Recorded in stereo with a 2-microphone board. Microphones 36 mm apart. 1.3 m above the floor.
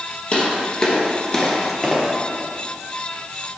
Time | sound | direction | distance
0.3 | footsteps | 30° left (ahead or behind) | 1.9 m